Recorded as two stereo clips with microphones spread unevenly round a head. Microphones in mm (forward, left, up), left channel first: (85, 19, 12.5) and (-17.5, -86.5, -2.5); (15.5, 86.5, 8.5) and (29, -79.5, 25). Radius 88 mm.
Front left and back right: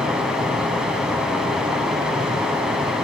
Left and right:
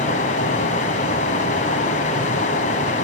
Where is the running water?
135° left, 1.5 m.